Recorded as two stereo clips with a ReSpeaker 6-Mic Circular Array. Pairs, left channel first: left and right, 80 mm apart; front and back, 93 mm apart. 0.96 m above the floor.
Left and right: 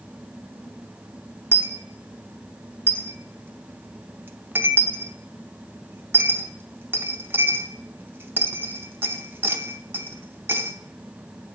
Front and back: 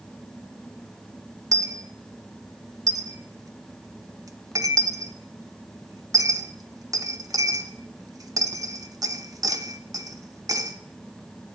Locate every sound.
1.5 s a dropped coin: 145° right, 0.6 m